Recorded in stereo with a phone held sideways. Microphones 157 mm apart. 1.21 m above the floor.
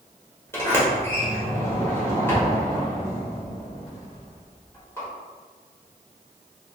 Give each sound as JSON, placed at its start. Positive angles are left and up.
{"t": 0.5, "sound": "a sliding door", "side_deg": 15, "distance_m": 1.0}